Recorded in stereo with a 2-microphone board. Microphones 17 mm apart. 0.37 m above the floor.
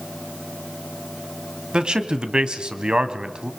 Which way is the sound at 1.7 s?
50° right (ahead or behind).